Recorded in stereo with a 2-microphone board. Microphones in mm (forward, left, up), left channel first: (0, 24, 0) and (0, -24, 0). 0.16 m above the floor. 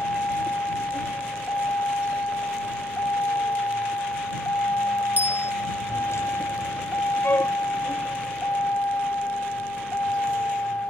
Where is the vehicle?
60° left (ahead or behind); by 10.9 s 45° left (ahead or behind).